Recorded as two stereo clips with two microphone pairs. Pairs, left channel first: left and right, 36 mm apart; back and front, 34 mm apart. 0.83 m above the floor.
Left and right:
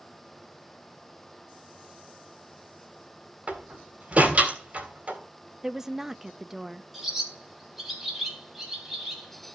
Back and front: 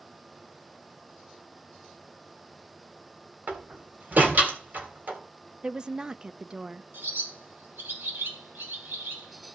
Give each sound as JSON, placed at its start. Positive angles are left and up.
{"t": 3.5, "sound": "a door slam", "azimuth_deg": -35, "distance_m": 3.0}
{"t": 5.6, "sound": "a woman speaking", "azimuth_deg": -10, "distance_m": 0.5}
{"t": 6.9, "sound": "a bird", "azimuth_deg": -5, "distance_m": 3.0}